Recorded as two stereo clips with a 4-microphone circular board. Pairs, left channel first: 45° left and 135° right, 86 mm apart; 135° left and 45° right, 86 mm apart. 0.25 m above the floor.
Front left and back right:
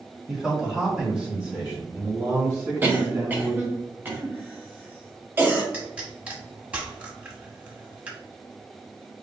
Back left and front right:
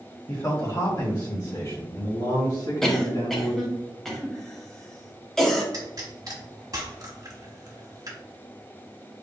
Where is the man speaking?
135° left, 1.8 m; by 3.7 s 160° left, 3.5 m.